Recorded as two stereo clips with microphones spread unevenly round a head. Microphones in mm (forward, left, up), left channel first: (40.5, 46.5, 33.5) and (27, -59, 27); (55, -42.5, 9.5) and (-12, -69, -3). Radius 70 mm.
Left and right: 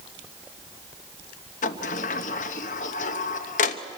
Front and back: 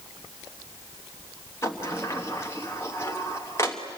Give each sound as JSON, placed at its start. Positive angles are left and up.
{"t": 1.6, "sound": "a sliding door", "azimuth_deg": 95, "distance_m": 1.0}